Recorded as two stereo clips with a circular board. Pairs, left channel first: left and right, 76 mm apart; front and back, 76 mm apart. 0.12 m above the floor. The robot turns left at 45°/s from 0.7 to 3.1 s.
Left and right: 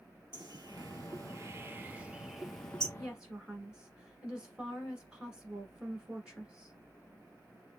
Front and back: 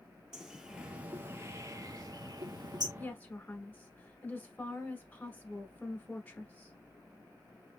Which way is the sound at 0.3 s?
100° right.